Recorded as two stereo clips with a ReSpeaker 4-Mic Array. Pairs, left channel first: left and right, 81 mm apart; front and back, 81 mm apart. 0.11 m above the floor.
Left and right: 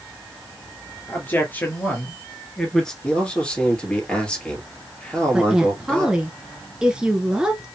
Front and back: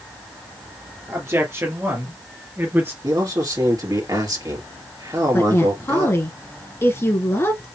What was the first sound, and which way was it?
A man speaking, 140° left.